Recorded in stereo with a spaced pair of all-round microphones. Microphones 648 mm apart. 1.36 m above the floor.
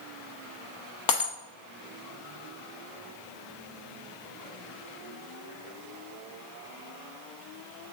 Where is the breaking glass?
30° left (ahead or behind), 0.8 m.